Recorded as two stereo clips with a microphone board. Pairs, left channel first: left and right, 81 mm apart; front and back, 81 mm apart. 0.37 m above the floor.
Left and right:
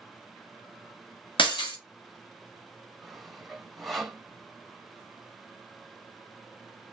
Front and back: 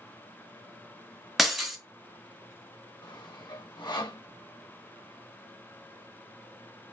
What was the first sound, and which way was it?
Breaking glass, 90° left.